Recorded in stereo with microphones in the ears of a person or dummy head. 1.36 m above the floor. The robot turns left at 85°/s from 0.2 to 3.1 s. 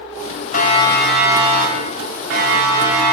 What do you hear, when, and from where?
0.5 s a siren: 50° left (ahead or behind), 5 m; by 3.1 s 15° left (ahead or behind), 6.5 m